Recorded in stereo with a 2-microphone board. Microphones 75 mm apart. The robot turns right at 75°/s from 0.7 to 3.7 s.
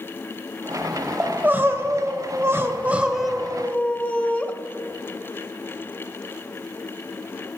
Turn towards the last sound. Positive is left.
turn(degrees=25)